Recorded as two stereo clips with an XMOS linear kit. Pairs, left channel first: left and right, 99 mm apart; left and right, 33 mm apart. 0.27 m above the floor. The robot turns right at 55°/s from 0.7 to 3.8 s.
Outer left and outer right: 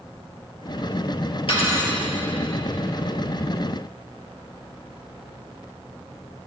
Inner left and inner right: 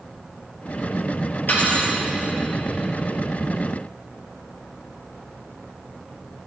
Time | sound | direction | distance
1.5 | cutlery clinking | 70° left (ahead or behind) | 3.5 m